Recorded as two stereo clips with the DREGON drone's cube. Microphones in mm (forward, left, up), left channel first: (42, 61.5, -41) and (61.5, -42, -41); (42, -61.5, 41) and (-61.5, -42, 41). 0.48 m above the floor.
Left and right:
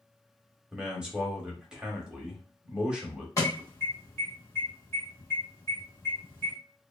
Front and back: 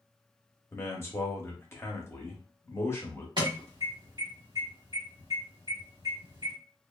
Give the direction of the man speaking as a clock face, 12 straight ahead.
12 o'clock.